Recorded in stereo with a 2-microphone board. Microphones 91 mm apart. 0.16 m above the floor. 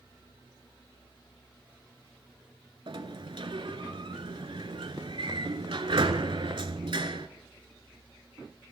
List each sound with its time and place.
2.9 s a sliding door: 65° right (ahead or behind), 0.7 m